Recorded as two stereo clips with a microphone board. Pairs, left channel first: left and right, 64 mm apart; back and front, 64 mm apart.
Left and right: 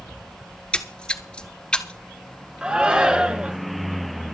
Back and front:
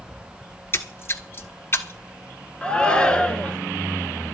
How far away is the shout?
About 1.1 m.